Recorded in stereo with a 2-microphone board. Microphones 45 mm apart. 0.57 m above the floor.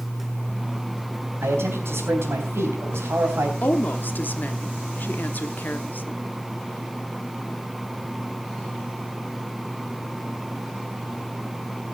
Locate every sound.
1.4 s a man speaking: 65° right (ahead or behind), 3.5 m
3.6 s a woman speaking: 40° left (ahead or behind), 1.0 m